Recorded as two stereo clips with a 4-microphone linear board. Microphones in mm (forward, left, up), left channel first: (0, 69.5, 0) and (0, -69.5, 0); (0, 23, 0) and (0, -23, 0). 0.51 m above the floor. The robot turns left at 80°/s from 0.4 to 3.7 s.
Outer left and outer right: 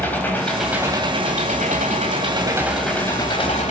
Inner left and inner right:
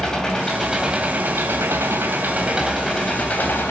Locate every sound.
0.0 s an engine running: 15° left, 2.5 m; by 3.7 s 110° left, 2.5 m